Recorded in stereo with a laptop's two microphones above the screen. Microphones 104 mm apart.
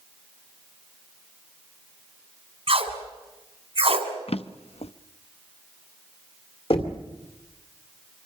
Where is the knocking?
65° left (ahead or behind), 2 m.